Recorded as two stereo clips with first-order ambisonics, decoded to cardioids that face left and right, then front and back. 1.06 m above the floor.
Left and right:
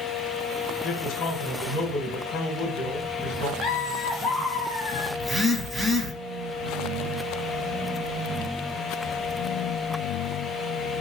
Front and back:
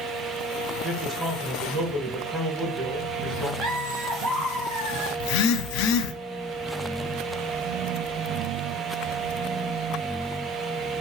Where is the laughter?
165° left, 1.7 m.